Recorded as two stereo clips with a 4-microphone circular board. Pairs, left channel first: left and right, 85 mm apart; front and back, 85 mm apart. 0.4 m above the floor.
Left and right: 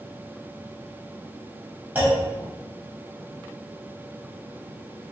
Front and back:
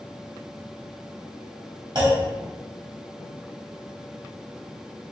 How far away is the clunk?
About 1.8 m.